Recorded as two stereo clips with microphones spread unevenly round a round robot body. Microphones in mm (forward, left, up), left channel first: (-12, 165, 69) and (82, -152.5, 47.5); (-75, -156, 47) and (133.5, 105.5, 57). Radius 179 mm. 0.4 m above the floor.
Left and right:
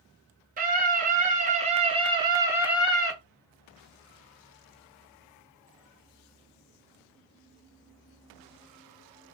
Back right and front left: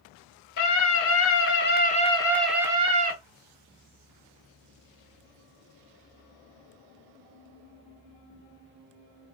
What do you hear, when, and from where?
0.6 s a scream: 130° right, 1.2 m; by 3.1 s 15° left, 0.8 m